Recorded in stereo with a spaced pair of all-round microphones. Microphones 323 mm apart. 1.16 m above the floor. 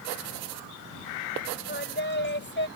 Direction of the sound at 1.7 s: 35° left (ahead or behind).